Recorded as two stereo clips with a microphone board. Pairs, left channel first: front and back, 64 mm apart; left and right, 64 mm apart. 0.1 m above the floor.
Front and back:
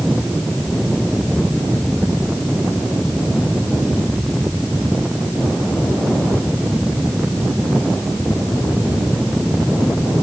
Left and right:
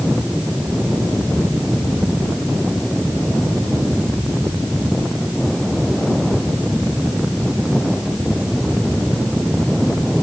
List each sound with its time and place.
Only background noise.